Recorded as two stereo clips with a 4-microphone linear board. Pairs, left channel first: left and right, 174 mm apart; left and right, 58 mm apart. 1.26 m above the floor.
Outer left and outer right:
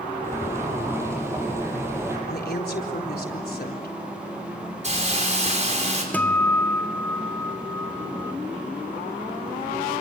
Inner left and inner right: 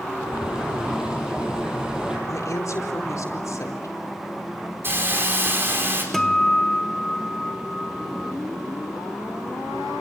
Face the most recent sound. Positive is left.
turn(degrees=10)  # may be behind; listen again after turning